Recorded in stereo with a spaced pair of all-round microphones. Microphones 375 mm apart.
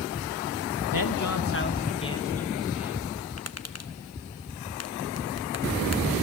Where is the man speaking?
65° left (ahead or behind), 1.6 m; by 3.0 s 5° right (ahead or behind), 3 m.